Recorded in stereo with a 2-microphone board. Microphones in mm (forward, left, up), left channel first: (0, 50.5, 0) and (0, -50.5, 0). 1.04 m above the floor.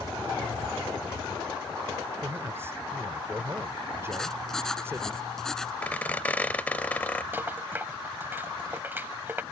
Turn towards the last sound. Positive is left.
turn(degrees=-20)  # may be behind; listen again after turning